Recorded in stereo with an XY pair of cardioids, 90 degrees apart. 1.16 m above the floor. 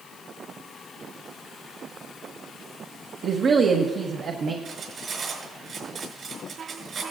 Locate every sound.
3.2 s a woman speaking: 65° right, 1.0 m
4.7 s cutlery clinking: 55° right, 5.5 m